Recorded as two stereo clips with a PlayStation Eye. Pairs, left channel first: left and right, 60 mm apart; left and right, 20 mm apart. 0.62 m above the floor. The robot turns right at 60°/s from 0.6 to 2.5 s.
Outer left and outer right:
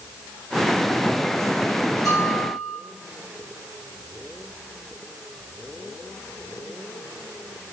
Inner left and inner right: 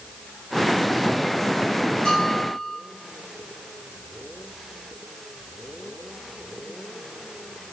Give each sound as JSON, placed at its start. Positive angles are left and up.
{"t": 2.0, "sound": "a bell", "side_deg": 65, "distance_m": 1.8}